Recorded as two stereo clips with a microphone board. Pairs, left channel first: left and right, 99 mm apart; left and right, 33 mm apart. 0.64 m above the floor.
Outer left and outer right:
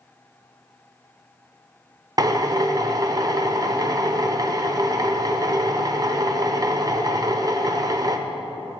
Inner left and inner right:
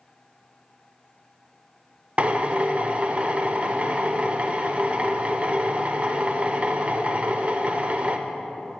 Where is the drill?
40° right (ahead or behind), 0.6 m.